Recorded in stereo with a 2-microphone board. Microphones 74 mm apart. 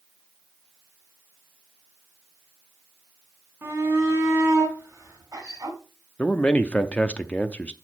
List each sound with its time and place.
3.6 s a shout: 35° right (ahead or behind), 3.5 m; by 5.8 s 50° right (ahead or behind), 3.5 m
6.2 s a man speaking: 20° left (ahead or behind), 0.6 m